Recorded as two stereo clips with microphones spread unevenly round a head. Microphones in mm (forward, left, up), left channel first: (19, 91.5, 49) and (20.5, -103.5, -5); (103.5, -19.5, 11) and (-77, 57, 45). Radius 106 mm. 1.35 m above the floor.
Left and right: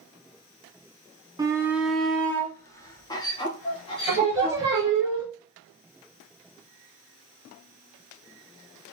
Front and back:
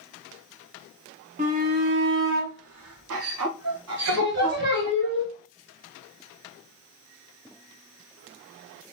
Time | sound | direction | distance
1.4 | a shout | 145° right | 0.8 m
4.1 | singing | 165° right | 1.9 m